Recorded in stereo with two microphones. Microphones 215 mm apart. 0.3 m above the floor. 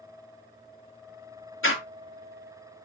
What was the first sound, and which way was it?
A door slam, 70° left (ahead or behind).